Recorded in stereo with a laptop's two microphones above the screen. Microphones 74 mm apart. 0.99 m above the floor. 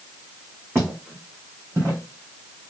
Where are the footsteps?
35° right (ahead or behind), 3 m; by 2.7 s 30° right (ahead or behind), 1.5 m.